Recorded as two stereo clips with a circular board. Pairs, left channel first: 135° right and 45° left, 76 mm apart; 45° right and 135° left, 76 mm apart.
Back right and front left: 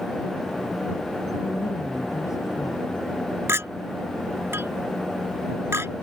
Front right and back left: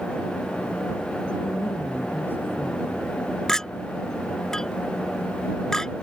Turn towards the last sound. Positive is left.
turn(degrees=35)